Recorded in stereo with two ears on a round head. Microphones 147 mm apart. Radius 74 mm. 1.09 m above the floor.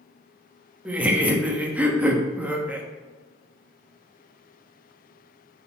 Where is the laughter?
10° right (ahead or behind), 1.3 m.